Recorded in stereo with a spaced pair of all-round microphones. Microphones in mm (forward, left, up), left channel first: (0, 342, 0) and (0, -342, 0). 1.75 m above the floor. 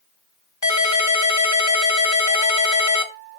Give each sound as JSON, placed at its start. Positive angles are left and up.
{"t": 0.6, "sound": "a ringtone", "side_deg": 25, "distance_m": 1.4}